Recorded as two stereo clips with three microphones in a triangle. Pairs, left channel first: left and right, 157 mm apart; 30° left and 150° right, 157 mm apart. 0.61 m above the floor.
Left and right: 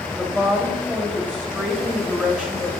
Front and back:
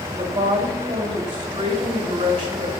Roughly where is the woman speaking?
Behind.